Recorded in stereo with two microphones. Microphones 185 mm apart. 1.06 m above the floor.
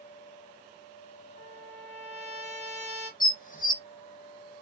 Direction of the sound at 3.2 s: 50° left (ahead or behind).